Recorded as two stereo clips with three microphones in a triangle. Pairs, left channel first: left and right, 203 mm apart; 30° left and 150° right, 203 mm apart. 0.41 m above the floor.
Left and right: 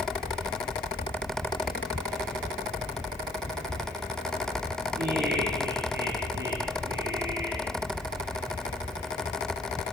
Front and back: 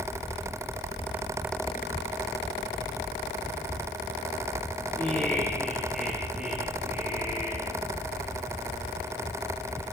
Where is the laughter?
50° right, 8 m; by 7.7 s 75° right, 8 m.